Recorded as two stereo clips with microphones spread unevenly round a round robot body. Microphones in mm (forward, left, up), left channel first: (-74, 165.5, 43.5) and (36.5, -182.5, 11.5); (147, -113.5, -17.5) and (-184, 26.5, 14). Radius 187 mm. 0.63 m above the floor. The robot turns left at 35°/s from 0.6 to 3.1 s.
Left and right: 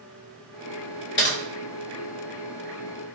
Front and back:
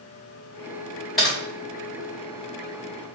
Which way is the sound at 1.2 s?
60° left.